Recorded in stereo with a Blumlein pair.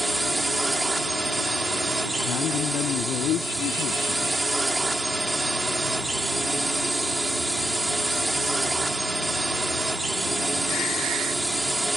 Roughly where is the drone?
Ahead.